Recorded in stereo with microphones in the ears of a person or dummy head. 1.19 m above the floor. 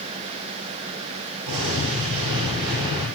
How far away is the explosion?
About 4 m.